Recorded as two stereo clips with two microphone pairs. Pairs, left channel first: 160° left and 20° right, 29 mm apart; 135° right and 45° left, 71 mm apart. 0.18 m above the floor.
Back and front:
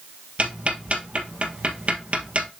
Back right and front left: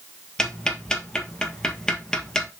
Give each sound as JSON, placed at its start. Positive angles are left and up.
{"t": 0.4, "sound": "ticking", "azimuth_deg": -60, "distance_m": 1.3}